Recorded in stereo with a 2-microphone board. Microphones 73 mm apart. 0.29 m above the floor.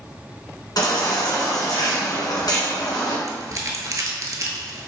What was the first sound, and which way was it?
A baby crying, 65° left (ahead or behind).